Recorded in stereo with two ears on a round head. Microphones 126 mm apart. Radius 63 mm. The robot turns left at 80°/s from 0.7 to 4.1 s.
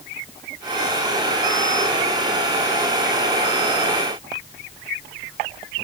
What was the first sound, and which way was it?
Only background noise.